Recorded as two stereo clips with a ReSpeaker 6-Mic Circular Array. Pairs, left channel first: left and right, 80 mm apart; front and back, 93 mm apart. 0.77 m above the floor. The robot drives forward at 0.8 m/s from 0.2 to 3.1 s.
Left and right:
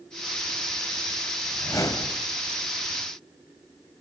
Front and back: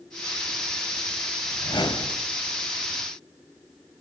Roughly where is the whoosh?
Ahead left.